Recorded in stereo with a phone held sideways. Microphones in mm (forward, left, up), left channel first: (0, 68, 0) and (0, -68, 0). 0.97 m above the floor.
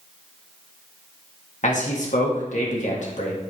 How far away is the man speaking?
About 1.7 m.